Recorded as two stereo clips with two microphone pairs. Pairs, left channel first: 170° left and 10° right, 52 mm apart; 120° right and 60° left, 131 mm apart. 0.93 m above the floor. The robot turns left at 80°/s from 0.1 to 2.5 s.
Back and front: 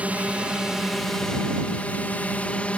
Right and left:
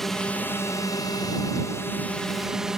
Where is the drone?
35° right; by 2.8 s 145° left.